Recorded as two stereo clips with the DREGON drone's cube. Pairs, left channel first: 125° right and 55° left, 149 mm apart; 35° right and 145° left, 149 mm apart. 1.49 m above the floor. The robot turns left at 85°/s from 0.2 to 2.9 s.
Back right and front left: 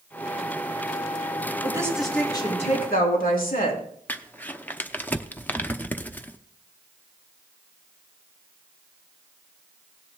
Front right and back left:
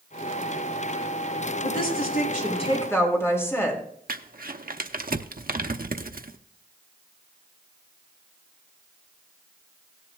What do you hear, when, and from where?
1.6 s a woman speaking: straight ahead, 3.5 m; by 3.8 s 110° right, 3.5 m
4.1 s crumpling: 155° left, 0.7 m